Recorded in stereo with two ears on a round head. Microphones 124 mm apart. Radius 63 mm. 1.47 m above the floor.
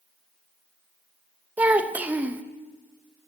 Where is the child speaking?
10° right (ahead or behind), 0.8 m.